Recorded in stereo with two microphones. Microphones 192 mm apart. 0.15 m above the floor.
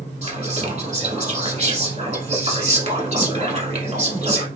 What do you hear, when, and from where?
0.2 s whispering: 40° right (ahead or behind), 1.4 m